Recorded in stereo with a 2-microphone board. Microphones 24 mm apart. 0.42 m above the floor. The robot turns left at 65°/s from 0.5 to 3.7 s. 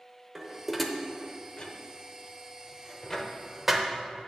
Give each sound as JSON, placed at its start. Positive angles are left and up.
{"t": 0.3, "sound": "dishes clattering", "side_deg": -10, "distance_m": 0.7}